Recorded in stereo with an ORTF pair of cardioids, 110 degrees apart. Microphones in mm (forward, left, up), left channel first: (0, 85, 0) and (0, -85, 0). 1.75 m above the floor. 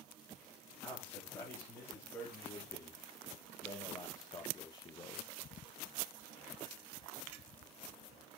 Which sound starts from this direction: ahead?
A man speaking, at 0.8 s.